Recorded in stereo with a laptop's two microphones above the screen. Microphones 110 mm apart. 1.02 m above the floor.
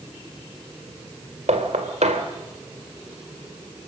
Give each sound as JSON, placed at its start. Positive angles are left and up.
{"t": 1.5, "sound": "knocking", "side_deg": -85, "distance_m": 2.0}